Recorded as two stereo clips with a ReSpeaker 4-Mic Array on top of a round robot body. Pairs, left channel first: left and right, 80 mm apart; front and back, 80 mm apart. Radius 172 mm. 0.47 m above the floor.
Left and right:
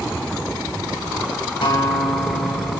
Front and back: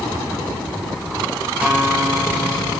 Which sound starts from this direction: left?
A guitar, at 1.6 s.